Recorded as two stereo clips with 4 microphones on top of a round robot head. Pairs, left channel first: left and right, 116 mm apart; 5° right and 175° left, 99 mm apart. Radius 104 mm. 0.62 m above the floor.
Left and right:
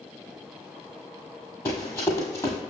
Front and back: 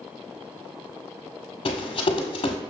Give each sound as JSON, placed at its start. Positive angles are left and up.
{"t": 1.6, "sound": "running footsteps", "azimuth_deg": 20, "distance_m": 1.3}